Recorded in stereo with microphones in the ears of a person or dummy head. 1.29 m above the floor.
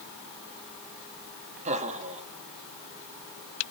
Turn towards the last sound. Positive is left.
turn(degrees=-40)  # may be behind; listen again after turning